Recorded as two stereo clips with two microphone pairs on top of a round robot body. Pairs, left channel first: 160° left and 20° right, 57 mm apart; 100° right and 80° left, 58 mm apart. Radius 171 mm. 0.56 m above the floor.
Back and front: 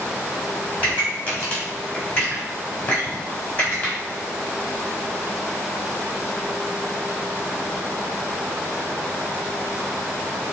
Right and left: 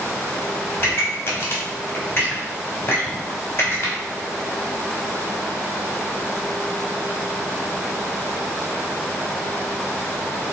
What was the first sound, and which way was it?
A pop, 150° right.